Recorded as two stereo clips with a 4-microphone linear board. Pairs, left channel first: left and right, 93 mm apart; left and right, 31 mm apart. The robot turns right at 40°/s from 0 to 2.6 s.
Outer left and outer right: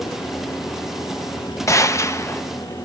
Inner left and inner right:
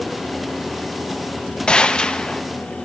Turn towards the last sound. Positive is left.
turn(degrees=125)